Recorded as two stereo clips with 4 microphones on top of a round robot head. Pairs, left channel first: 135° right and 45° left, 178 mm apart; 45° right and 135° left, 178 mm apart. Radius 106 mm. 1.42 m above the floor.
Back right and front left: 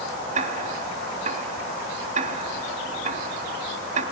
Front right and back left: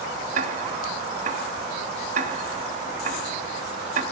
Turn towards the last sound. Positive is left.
turn(degrees=90)